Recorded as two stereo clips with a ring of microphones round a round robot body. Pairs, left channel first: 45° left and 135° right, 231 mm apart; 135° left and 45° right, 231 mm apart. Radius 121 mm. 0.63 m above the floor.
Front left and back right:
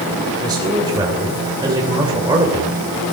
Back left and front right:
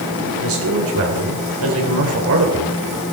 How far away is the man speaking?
About 3 m.